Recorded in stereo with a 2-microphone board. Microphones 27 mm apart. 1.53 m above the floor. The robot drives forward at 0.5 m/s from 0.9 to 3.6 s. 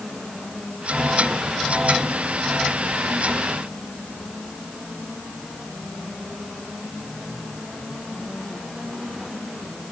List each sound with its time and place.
Only background noise.